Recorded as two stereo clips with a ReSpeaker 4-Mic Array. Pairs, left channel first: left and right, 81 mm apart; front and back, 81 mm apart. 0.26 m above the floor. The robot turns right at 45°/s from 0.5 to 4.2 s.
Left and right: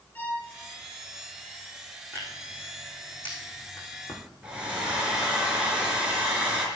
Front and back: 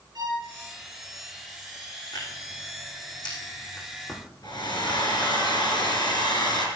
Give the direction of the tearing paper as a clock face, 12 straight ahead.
1 o'clock.